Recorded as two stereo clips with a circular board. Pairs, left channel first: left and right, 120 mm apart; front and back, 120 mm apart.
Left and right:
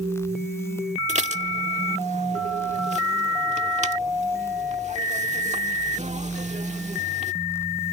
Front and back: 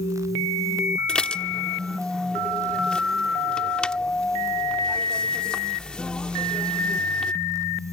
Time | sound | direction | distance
1.1 | dishes clattering | 80° right | ?